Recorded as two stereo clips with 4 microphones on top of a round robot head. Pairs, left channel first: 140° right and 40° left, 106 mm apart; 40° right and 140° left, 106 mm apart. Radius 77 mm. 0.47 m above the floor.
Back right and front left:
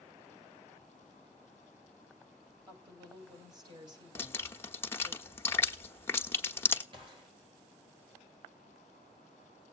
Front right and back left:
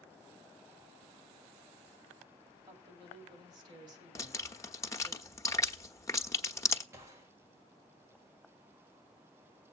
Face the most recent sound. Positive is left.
turn(degrees=75)